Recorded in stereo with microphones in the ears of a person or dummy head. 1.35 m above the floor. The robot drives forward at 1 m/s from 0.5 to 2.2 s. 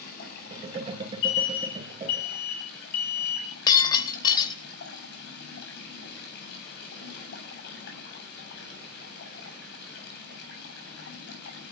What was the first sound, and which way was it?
Running water, 60° left (ahead or behind).